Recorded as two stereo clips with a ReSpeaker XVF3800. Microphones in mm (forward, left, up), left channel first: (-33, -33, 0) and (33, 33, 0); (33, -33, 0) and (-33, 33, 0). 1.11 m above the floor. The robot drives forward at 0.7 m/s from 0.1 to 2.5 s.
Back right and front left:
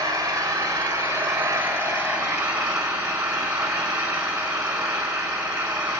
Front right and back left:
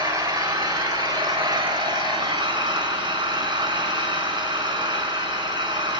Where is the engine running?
95° left, 4 m; by 6.0 s 120° left, 4.5 m.